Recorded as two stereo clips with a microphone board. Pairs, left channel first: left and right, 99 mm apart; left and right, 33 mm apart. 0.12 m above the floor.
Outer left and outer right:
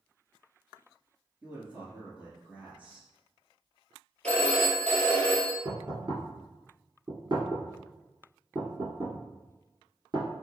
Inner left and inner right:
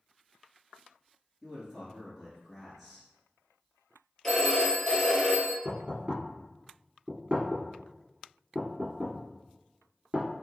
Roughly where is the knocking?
Right.